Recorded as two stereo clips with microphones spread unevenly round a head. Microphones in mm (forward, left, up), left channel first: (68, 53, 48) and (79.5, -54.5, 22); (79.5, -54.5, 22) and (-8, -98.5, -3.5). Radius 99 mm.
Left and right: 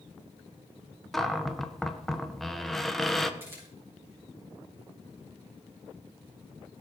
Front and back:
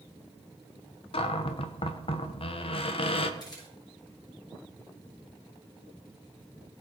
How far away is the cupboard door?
About 1.6 m.